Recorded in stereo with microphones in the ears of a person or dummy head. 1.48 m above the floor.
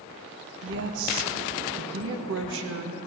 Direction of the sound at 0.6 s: 75° right (ahead or behind).